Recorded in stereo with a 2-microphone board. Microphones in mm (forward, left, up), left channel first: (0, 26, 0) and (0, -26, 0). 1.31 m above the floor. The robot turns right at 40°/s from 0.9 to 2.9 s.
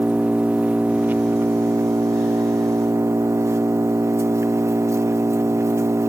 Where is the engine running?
155° right, 0.7 m; by 6.1 s 75° right, 0.7 m.